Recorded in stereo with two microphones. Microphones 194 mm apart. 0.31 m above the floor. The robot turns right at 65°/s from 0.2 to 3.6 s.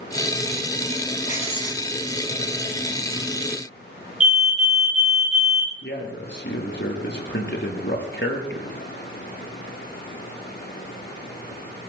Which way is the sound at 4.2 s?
40° right (ahead or behind).